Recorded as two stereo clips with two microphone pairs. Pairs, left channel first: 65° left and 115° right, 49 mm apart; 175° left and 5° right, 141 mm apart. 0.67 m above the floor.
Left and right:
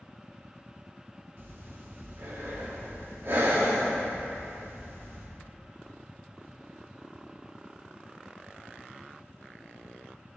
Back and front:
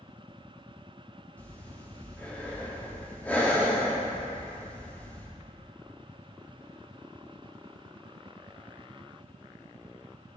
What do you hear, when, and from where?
1.4 s breathing: 105° right, 1.2 m